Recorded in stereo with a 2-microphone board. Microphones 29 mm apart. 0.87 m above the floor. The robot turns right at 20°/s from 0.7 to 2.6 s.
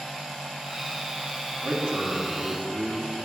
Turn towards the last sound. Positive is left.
turn(degrees=-60)  # may be behind; listen again after turning